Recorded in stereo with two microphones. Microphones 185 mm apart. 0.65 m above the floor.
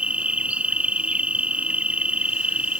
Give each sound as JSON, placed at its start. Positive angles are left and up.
{"t": 0.0, "sound": "an insect", "side_deg": -5}